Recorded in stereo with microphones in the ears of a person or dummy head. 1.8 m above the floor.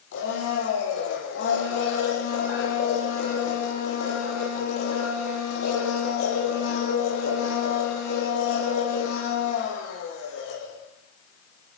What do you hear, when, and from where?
0.1 s a blender: 65° left (ahead or behind), 9.5 m